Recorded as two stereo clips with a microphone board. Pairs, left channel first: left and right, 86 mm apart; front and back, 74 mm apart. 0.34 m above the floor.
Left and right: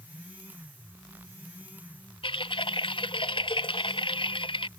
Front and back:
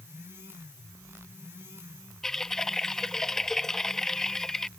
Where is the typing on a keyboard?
85° left.